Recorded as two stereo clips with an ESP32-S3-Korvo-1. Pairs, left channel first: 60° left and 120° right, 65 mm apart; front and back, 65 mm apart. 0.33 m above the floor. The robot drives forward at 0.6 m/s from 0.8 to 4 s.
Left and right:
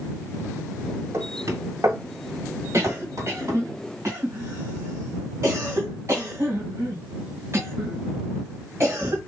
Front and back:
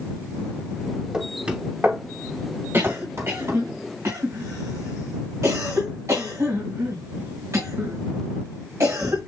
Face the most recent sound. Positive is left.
turn(degrees=-155)